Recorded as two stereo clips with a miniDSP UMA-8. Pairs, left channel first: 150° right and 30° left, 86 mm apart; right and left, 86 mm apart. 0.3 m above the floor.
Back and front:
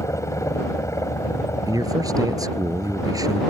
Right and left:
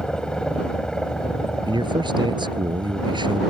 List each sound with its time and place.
0.0 s a helicopter: 165° right
1.7 s a man speaking: 70° left